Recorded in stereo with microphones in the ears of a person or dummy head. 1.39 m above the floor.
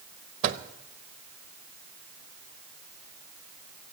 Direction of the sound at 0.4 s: 45° right (ahead or behind).